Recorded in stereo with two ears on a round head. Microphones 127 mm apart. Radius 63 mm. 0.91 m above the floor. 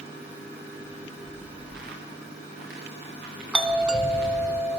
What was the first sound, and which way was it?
Footsteps, 75° right (ahead or behind).